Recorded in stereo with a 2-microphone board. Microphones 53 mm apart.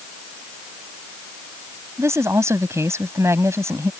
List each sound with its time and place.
2.0 s a woman speaking: 60° right (ahead or behind)